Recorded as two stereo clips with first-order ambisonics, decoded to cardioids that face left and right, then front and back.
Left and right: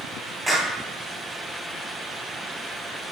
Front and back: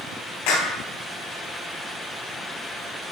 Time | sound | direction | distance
0.5 | a clap | 5° right | 3.5 m